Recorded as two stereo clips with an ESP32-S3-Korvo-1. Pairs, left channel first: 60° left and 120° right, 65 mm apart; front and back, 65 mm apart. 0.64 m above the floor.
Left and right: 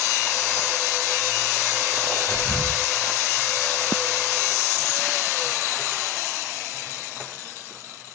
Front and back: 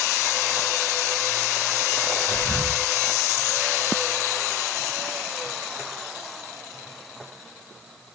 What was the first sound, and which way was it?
Whispering, straight ahead.